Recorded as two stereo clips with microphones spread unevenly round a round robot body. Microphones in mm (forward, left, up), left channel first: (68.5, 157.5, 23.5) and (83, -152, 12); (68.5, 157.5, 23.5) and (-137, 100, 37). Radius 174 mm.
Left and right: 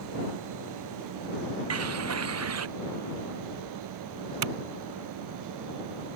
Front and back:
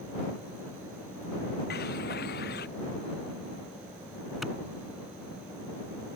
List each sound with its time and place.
1.7 s a bird: 45° right
4.4 s a clap: 75° right